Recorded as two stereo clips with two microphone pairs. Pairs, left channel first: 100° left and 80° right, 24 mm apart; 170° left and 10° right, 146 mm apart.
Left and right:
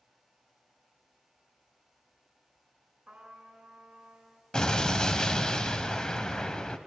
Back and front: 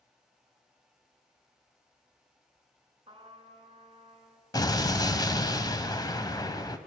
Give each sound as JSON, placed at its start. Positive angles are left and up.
{"t": 3.1, "sound": "a trumpet", "azimuth_deg": -55, "distance_m": 3.0}
{"t": 4.5, "sound": "an explosion", "azimuth_deg": 130, "distance_m": 1.1}